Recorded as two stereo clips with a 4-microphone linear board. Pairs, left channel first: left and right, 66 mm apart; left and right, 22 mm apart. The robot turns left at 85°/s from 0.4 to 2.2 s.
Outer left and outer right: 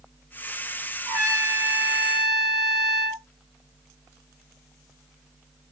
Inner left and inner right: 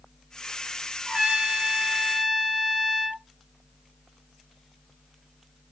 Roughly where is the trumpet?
Right.